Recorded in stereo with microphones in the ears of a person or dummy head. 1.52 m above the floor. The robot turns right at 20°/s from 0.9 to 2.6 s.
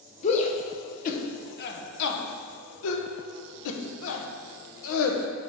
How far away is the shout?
About 0.9 m.